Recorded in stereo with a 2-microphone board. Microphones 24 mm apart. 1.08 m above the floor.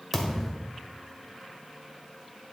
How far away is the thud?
About 1.7 m.